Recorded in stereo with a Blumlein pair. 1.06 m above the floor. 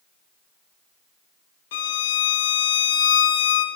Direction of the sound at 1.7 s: 55° left.